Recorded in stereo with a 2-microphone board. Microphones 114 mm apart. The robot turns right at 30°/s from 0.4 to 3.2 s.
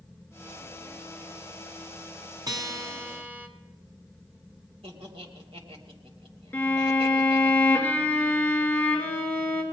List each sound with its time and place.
2.5 s a guitar: 35° right (ahead or behind), 1.3 m; by 3.5 s 15° right (ahead or behind), 1.3 m
4.8 s laughter: 60° right (ahead or behind), 2.5 m
6.5 s a violin: 15° left (ahead or behind), 2 m